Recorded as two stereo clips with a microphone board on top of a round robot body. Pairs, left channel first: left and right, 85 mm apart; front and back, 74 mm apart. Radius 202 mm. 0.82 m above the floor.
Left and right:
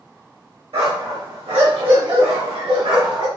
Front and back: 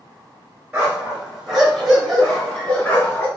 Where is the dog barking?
105° right, 3.5 m; by 3.3 s 70° right, 3.5 m.